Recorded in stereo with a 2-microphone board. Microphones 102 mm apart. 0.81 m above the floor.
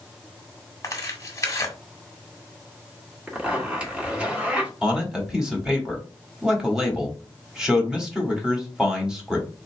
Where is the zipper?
10° right (ahead or behind), 1.3 m.